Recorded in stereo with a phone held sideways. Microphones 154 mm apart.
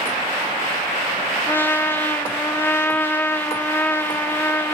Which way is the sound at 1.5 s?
15° left (ahead or behind).